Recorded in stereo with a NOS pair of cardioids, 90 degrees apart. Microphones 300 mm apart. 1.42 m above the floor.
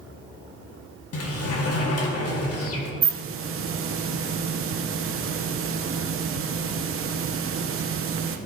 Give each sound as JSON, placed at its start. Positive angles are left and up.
{"t": 1.1, "sound": "a sliding door", "azimuth_deg": 55, "distance_m": 1.8}
{"t": 3.0, "sound": "a hiss", "azimuth_deg": -45, "distance_m": 1.0}